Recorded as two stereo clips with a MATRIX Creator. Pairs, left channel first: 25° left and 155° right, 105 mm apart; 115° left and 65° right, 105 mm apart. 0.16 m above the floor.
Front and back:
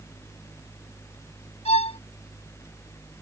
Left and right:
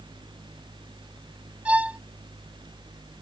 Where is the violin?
10° left.